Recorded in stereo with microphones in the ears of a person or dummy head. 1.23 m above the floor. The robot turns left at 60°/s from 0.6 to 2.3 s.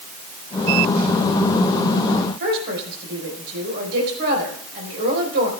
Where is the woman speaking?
60° right (ahead or behind), 4 m.